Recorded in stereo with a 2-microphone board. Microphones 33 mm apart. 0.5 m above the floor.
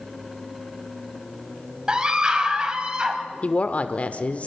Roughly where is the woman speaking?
Left.